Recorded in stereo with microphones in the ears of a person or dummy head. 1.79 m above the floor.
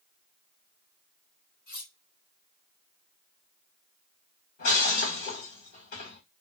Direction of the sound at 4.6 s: 45° left (ahead or behind).